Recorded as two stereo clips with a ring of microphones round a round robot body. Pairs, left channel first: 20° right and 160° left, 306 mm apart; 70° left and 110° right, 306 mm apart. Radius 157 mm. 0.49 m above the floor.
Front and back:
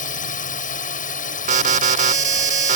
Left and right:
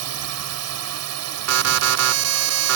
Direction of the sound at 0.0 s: 85° right.